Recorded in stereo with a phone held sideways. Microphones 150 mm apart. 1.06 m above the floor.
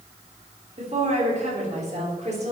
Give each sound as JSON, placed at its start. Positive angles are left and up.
{"t": 0.8, "sound": "a woman speaking", "side_deg": -50, "distance_m": 3.0}